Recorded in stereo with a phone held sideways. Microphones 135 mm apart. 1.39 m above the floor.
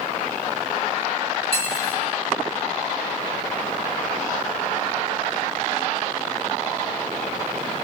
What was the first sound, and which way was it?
Cutlery clinking, 45° left (ahead or behind).